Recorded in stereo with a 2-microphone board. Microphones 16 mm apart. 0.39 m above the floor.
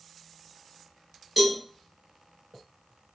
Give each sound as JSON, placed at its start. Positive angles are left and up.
{"t": 1.4, "sound": "a cowbell", "side_deg": -15, "distance_m": 1.8}